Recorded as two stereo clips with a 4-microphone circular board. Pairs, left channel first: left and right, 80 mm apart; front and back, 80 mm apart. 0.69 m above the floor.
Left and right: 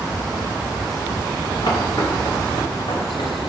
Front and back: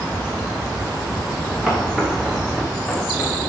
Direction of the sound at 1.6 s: 105° left.